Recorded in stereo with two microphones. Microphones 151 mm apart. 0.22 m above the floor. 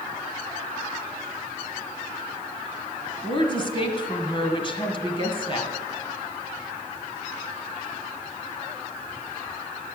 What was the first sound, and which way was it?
A woman speaking, 35° left (ahead or behind).